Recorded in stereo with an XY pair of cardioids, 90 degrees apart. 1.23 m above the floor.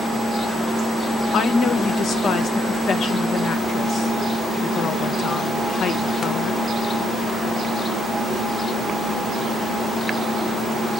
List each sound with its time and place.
1.3 s a woman speaking: 70° left, 1.0 m